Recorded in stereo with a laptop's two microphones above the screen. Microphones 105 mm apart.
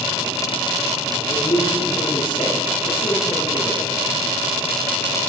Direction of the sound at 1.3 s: 50° left (ahead or behind).